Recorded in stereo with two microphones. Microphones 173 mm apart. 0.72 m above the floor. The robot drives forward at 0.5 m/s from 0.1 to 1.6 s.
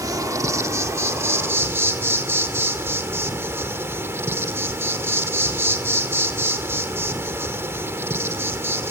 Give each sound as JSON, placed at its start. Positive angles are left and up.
{"t": 0.0, "sound": "an insect", "side_deg": -20, "distance_m": 1.6}